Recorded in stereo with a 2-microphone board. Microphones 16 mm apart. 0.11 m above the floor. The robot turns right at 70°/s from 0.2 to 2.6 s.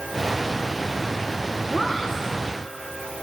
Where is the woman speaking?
25° left, 4 m; by 2.2 s 60° left, 4 m.